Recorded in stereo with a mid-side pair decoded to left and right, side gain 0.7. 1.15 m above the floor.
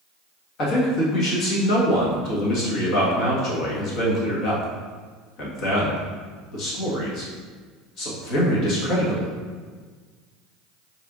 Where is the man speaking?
55° left, 1.7 m.